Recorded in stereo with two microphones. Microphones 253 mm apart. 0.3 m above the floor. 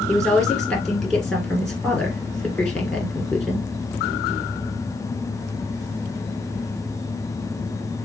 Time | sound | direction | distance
0.1 | a woman speaking | centre (ahead or behind) | 3 m